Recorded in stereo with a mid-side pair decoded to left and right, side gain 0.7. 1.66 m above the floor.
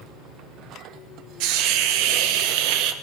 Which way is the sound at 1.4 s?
70° right.